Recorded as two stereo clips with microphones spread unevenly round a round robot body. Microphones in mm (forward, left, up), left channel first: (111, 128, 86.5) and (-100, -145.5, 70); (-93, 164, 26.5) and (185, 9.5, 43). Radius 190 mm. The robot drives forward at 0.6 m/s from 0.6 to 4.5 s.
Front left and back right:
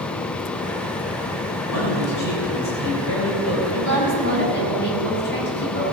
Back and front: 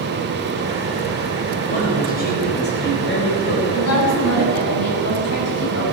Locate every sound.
1.7 s a man speaking: 85° left, 4 m; by 3.6 s 105° left, 4 m
3.7 s a woman speaking: 110° left, 5 m; by 5.8 s 115° left, 5.5 m